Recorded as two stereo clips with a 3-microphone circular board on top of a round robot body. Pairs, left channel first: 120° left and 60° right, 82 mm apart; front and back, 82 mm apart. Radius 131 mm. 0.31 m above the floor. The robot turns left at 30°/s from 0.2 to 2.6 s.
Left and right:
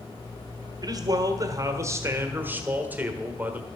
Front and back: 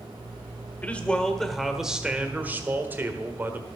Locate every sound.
0.8 s a man speaking: 65° right, 1.4 m; by 3.7 s 120° right, 1.4 m